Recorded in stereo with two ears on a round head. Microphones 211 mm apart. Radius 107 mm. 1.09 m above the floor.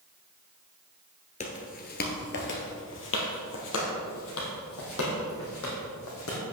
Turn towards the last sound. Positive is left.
turn(degrees=65)  # may be behind; listen again after turning